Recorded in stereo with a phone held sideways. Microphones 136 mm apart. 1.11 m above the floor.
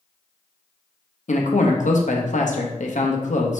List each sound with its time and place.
1.3 s a man speaking: 65° left (ahead or behind), 0.8 m